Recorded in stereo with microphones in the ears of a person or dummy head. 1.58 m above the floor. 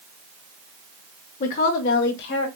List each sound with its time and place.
1.4 s a woman speaking: 40° left (ahead or behind), 0.7 m; by 2.5 s 65° left (ahead or behind), 1.2 m